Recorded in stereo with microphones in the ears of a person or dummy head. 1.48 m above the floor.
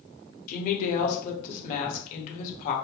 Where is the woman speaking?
50° left (ahead or behind), 1.0 m.